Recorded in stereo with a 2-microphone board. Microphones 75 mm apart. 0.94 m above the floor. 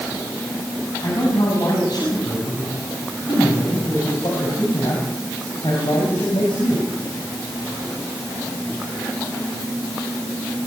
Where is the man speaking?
55° left (ahead or behind), 7 m; by 6.9 s 85° left, 6.5 m.